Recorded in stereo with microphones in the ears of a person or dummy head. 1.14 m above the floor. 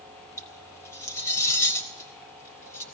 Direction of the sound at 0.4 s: 15° left (ahead or behind).